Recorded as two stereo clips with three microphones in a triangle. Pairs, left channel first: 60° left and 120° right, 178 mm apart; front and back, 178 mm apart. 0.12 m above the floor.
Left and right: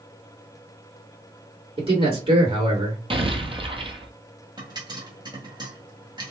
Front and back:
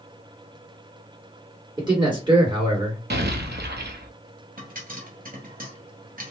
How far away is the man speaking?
About 2 m.